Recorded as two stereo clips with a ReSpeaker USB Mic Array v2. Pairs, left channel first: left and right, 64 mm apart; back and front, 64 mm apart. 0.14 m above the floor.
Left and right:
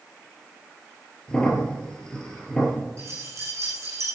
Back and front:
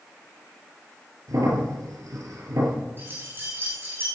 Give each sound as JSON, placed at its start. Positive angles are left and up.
{"t": 1.3, "sound": "a crack", "azimuth_deg": 15, "distance_m": 4.0}
{"t": 3.0, "sound": "keys jangling", "azimuth_deg": -55, "distance_m": 5.5}